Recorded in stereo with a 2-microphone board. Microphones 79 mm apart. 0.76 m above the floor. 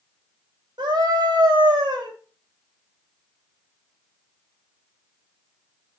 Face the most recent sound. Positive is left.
turn(degrees=-80)